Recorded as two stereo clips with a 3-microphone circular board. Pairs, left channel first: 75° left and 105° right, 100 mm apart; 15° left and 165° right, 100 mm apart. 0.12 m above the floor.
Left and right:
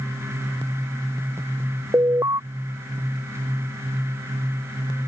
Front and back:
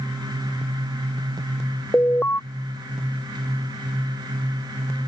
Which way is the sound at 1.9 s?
50° right.